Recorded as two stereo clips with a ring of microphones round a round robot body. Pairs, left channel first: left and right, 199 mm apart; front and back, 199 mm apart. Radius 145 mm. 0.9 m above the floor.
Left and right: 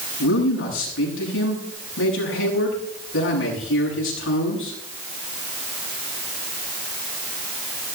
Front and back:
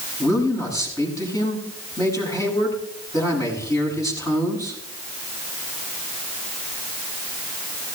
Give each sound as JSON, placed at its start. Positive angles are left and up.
{"t": 0.2, "sound": "a man speaking", "azimuth_deg": 75, "distance_m": 7.5}